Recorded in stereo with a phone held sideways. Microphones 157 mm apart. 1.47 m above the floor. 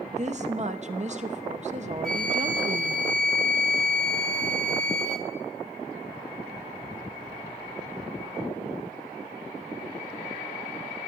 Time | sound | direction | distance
0.1 | a woman speaking | 45° right (ahead or behind) | 0.8 m
2.0 | a flute | 5° left (ahead or behind) | 1.1 m